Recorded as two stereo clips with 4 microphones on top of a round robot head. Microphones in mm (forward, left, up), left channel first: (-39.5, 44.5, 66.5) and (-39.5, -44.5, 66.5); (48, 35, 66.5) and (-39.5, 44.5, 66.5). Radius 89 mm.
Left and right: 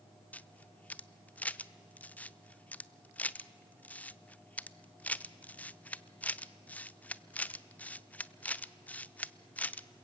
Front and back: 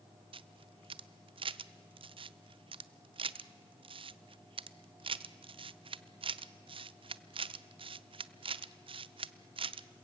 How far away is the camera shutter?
About 0.7 m.